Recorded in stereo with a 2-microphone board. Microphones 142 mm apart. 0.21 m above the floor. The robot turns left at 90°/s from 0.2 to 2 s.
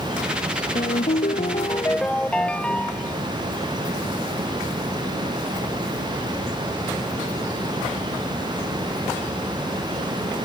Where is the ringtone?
120° left; by 3.2 s 10° left.